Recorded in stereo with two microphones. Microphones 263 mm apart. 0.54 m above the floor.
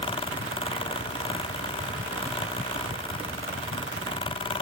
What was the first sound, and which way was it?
Only background noise.